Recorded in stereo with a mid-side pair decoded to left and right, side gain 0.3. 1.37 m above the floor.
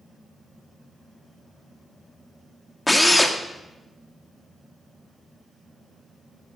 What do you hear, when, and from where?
2.9 s a drill: 20° left, 1.9 m